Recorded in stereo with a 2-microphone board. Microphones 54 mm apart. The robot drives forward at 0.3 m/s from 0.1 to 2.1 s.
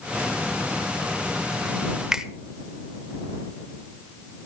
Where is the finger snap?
10° right (ahead or behind), 1.1 m.